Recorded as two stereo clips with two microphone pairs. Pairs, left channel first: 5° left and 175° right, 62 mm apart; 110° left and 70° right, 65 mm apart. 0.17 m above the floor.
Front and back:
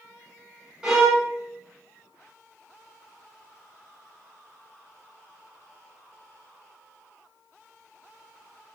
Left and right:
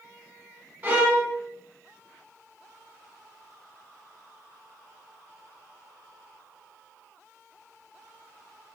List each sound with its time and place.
0.8 s a violin: 105° right, 0.8 m